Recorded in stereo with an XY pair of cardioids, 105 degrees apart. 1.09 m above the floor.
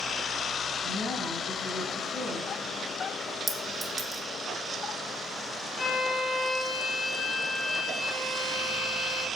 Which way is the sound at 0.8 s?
60° left.